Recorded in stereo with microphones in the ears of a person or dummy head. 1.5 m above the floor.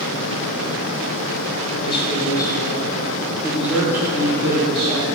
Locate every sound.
1.8 s a man speaking: 35° left (ahead or behind), 2.5 m; by 5.1 s 25° right (ahead or behind), 3 m